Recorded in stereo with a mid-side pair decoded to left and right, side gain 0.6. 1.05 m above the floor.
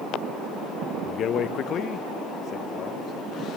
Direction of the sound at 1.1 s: 50° left.